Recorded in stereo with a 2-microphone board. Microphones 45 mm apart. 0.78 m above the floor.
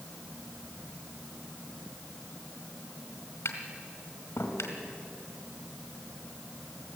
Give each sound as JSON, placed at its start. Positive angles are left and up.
{"t": 3.5, "sound": "tapping", "side_deg": 70, "distance_m": 3.0}